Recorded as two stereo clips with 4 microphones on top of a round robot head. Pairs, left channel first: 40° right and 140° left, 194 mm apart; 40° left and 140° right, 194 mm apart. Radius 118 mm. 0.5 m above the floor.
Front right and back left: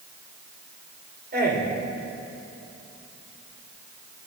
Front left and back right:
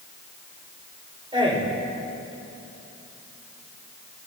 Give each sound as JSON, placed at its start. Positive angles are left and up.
{"t": 1.3, "sound": "a man speaking", "azimuth_deg": 160, "distance_m": 2.5}